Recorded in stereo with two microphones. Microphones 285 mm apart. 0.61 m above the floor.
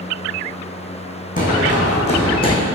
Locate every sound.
1.4 s running footsteps: 30° left (ahead or behind), 2 m; by 2.6 s 15° left (ahead or behind), 1.6 m